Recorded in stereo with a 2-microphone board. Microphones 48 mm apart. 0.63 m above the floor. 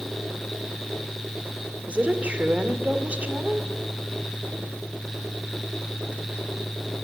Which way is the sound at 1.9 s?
30° right (ahead or behind).